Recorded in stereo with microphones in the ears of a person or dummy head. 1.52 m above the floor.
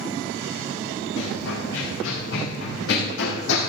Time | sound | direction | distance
1.2 | running footsteps | 60° left (ahead or behind) | 5 m